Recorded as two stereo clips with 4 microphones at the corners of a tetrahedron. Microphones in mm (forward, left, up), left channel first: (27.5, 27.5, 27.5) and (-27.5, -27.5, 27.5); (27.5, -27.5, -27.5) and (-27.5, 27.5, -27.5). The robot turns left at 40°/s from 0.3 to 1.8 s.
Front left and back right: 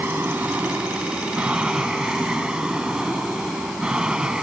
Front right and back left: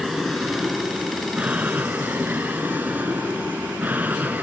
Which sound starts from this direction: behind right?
An aircraft, at 0.0 s.